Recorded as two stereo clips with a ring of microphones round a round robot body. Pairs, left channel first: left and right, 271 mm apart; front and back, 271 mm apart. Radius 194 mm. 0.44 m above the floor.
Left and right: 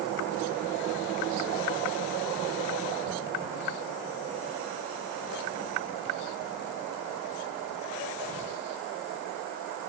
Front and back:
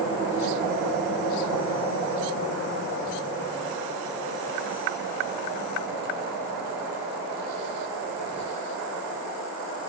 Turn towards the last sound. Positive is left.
No sound to turn to.